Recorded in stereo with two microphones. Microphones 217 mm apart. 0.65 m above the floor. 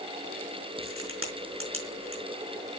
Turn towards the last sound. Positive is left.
turn(degrees=-75)  # may be behind; listen again after turning